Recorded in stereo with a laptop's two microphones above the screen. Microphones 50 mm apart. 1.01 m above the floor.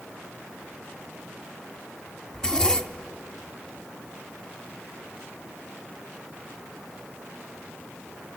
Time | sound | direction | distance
2.3 | a zipper | 15° left (ahead or behind) | 0.8 m